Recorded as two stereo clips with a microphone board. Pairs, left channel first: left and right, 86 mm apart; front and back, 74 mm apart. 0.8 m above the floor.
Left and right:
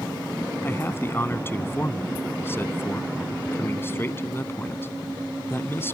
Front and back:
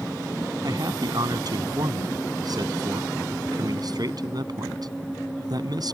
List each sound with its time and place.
0.6 s a man speaking: 155° left